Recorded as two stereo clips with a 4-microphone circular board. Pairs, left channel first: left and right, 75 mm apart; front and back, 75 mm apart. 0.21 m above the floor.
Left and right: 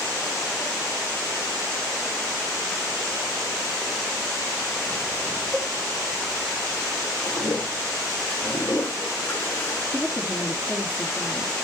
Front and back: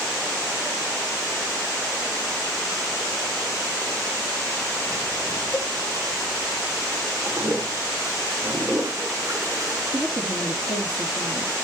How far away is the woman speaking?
About 4 m.